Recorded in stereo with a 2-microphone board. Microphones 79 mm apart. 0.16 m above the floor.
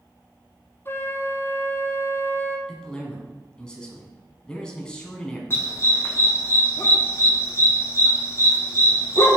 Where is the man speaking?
10° left (ahead or behind), 1.6 m.